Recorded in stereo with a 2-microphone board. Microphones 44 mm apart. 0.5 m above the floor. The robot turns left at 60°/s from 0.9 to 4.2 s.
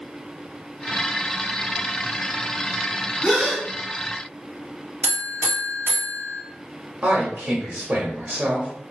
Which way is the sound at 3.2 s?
20° left (ahead or behind).